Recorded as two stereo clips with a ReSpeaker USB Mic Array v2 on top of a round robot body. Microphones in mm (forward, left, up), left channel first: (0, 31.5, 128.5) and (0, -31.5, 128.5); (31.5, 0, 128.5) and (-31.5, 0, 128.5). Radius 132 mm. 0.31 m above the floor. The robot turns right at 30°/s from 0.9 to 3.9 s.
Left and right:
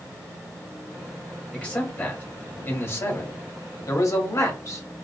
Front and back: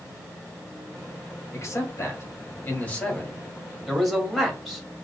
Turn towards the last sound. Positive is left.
turn(degrees=95)